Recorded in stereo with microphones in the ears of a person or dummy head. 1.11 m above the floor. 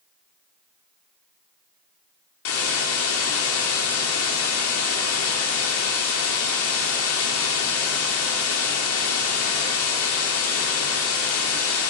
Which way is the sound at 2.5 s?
85° left.